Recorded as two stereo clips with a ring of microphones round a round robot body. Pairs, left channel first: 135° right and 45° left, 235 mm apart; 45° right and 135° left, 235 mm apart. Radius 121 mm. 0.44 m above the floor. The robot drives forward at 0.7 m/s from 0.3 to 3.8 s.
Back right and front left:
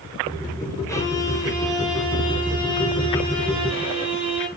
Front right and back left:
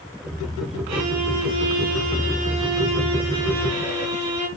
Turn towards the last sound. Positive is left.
turn(degrees=155)